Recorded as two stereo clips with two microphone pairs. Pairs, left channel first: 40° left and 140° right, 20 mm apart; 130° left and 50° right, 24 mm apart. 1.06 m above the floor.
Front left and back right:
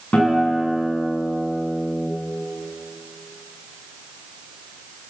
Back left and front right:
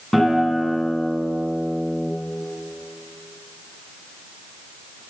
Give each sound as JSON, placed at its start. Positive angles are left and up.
{"t": 0.1, "sound": "a guitar", "azimuth_deg": 60, "distance_m": 8.5}